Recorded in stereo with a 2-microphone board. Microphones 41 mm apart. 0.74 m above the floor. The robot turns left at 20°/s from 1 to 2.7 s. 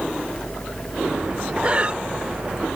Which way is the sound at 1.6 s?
35° right (ahead or behind).